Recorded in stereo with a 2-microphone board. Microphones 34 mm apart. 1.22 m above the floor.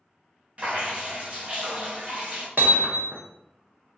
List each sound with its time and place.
0.6 s dripping: 35° right (ahead or behind), 0.8 m
2.6 s hammering: 60° right (ahead or behind), 0.6 m